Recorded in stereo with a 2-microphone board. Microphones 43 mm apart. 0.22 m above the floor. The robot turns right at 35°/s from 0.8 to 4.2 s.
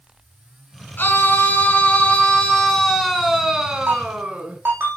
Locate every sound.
1.0 s a scream: 105° left, 2.5 m; by 4.6 s 140° right, 2.5 m
3.9 s a ringtone: 75° right (ahead or behind), 6.5 m; by 5.0 s 65° right (ahead or behind), 6.5 m